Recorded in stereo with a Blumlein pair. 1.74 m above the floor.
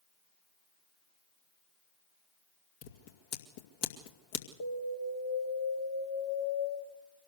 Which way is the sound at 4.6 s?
60° left.